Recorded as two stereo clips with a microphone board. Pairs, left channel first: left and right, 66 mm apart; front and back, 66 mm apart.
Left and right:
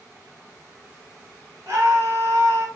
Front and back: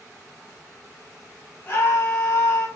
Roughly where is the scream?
Ahead right.